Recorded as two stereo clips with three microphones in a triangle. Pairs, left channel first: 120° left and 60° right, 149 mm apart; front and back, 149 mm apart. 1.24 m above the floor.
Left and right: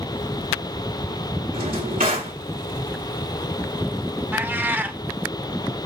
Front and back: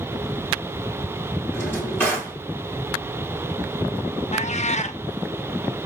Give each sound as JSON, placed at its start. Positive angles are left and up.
{"t": 1.5, "sound": "a drawer", "azimuth_deg": -75, "distance_m": 2.0}
{"t": 4.3, "sound": "a cat meowing", "azimuth_deg": 10, "distance_m": 0.5}